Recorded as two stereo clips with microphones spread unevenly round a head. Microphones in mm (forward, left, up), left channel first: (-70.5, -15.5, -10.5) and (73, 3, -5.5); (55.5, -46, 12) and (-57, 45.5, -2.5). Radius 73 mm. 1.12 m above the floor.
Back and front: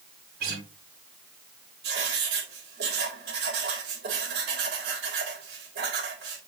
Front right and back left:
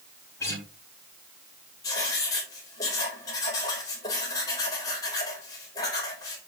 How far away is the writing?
About 4 m.